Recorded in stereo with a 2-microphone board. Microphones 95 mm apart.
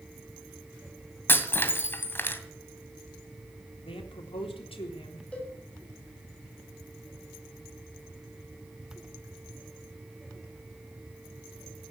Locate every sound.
1.3 s breaking glass: 25° left (ahead or behind), 2 m
3.9 s a man speaking: 75° left (ahead or behind), 3.5 m
5.3 s a cowbell: 15° left (ahead or behind), 6.5 m